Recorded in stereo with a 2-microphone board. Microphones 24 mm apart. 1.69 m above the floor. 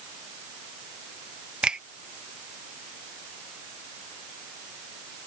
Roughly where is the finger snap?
Right.